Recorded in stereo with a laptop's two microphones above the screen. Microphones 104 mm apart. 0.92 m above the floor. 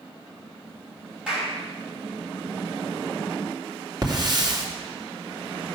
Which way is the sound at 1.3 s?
10° right (ahead or behind).